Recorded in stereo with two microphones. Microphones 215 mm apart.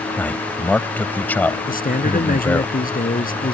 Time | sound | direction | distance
0.2 | a man speaking | 10° left (ahead or behind) | ?
1.7 | a man speaking | 40° left (ahead or behind) | ?